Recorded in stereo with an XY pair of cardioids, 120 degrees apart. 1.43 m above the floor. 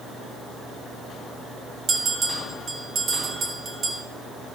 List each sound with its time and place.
1.9 s a bell: 45° right, 1.9 m